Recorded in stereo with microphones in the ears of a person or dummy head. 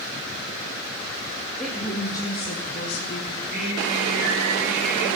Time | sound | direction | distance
1.6 | a woman speaking | centre (ahead or behind) | 2 m
3.3 | singing | 45° right (ahead or behind) | 5 m